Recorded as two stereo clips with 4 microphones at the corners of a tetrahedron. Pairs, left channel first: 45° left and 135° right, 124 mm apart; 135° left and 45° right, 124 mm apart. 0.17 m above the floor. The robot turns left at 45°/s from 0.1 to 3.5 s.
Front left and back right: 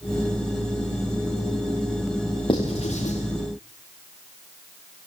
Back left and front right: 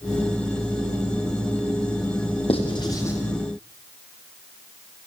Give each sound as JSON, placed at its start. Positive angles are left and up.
{"t": 2.5, "sound": "writing", "azimuth_deg": 95, "distance_m": 7.0}